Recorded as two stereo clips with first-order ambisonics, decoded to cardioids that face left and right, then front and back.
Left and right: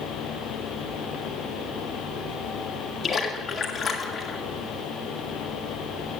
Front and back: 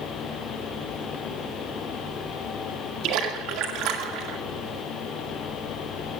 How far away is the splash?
About 2 m.